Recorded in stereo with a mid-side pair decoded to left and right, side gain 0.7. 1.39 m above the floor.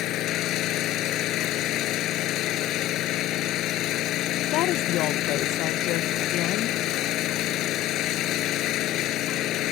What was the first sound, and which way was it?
An engine running, 55° left.